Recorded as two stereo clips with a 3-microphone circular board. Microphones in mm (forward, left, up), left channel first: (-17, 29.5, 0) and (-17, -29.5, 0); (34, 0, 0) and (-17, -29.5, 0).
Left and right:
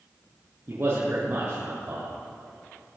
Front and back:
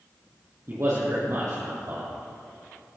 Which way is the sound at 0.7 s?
125° right.